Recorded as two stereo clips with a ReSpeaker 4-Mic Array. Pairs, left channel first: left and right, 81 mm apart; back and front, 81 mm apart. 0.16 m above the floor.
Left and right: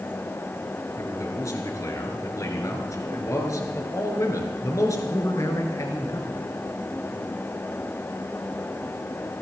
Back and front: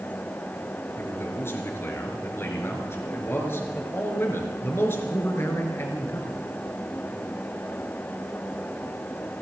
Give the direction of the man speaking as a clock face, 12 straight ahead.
8 o'clock.